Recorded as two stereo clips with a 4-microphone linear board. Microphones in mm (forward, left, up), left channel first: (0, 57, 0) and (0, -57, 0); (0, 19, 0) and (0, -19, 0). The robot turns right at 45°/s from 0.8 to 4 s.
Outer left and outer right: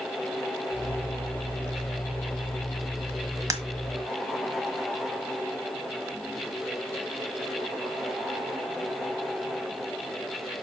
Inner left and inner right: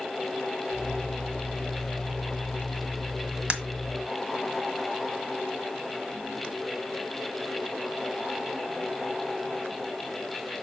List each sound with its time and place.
3.5 s breaking glass: 30° right (ahead or behind), 1.4 m; by 3.6 s 35° right (ahead or behind), 1.4 m